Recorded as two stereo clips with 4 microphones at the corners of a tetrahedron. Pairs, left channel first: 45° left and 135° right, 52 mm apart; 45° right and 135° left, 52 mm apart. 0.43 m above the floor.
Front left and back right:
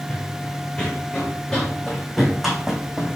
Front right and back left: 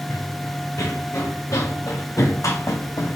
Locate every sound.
0.1 s running footsteps: 20° right, 2.5 m; by 3.2 s 55° right, 1.8 m